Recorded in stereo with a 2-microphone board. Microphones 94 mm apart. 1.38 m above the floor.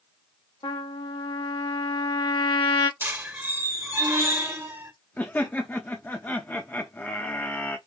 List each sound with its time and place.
0.6 s a trumpet: 65° left (ahead or behind), 1.2 m
3.0 s a squeak: 25° right (ahead or behind), 1.2 m
5.2 s laughter: 20° left (ahead or behind), 0.8 m